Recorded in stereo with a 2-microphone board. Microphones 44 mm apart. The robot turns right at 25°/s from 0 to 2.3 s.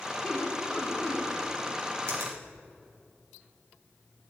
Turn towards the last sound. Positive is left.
turn(degrees=-75)  # may be behind; listen again after turning